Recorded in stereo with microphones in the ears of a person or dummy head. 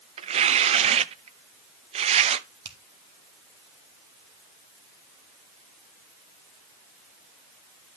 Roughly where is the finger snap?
Right.